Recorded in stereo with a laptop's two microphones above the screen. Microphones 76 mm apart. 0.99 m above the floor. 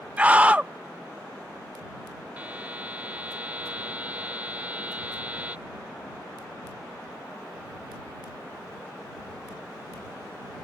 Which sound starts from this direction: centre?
A scream, at 0.2 s.